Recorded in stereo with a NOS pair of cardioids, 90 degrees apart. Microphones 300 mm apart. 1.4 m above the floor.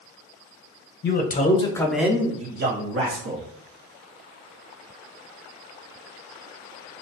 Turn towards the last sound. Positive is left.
turn(degrees=-60)